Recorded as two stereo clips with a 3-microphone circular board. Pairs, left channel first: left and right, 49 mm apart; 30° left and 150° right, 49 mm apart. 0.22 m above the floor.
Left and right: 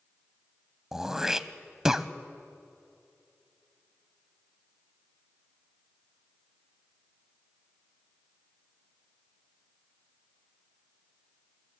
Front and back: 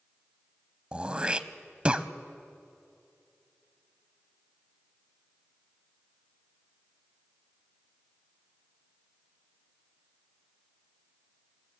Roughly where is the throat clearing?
Behind right.